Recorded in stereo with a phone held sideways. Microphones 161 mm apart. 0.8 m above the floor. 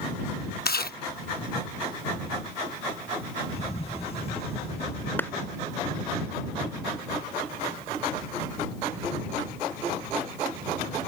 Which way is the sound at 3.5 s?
40° left (ahead or behind).